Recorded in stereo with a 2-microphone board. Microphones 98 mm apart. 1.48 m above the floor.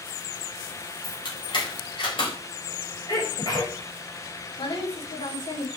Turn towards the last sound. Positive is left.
turn(degrees=75)  # may be behind; listen again after turning